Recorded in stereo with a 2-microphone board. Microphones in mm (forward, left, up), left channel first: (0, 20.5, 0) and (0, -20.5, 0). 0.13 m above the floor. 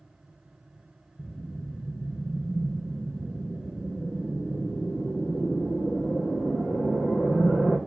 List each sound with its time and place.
1.2 s a whoosh: 50° left (ahead or behind), 4.5 m